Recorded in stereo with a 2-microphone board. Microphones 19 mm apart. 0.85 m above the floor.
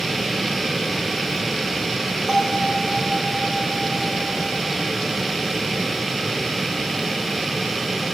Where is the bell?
35° right (ahead or behind), 8 m.